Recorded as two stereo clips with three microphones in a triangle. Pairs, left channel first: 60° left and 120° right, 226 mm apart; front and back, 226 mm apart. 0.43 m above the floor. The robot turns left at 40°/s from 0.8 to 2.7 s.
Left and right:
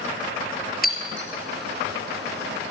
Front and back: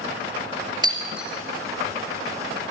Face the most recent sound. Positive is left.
turn(degrees=35)